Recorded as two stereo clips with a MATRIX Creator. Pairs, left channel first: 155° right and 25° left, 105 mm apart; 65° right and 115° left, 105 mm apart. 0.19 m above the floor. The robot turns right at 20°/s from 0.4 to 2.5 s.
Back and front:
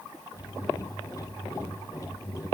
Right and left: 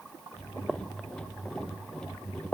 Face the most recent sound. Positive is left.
No sound to turn to.